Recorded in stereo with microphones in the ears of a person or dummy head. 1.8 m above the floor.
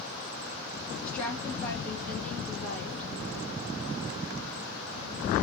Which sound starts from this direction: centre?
A woman speaking, at 1.0 s.